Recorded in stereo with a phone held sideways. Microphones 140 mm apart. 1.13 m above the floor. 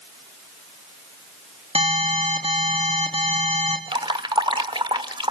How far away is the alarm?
About 3.5 m.